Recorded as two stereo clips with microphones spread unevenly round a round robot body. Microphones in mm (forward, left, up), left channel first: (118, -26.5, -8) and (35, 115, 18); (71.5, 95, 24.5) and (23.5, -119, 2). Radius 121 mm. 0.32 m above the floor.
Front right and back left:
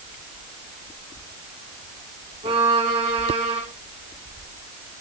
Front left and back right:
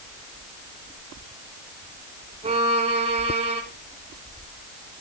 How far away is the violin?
About 2 m.